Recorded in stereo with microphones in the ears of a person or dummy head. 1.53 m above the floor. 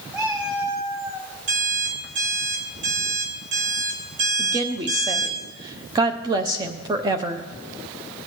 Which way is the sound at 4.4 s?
20° right (ahead or behind).